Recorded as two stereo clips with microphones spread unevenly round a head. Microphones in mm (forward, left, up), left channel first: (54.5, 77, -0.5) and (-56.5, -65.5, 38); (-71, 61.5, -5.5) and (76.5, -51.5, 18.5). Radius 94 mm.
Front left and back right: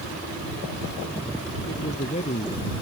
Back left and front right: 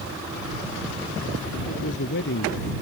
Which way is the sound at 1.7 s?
110° left.